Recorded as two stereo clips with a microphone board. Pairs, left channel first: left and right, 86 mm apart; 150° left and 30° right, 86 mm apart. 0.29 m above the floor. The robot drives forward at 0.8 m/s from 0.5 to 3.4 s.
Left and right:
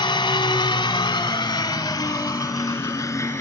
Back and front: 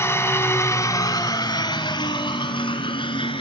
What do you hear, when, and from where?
0.0 s an engine running: 95° left, 1.5 m; by 3.4 s 150° left, 3 m